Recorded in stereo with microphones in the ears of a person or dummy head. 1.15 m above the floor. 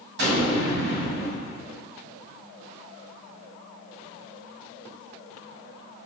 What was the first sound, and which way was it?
An explosion, 70° right (ahead or behind).